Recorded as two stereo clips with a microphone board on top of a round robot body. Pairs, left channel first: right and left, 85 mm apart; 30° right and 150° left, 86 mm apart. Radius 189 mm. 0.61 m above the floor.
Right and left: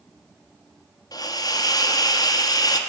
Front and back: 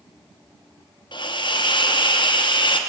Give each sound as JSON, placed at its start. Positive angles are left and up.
{"t": 1.1, "sound": "a hiss", "azimuth_deg": -50, "distance_m": 1.1}